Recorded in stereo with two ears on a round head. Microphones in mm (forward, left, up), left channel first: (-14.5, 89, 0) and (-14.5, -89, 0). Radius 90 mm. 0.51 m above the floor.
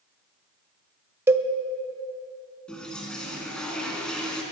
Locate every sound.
1.3 s a cowbell: 15° right (ahead or behind), 0.5 m
2.7 s a toilet flushing: 5° left (ahead or behind), 2.5 m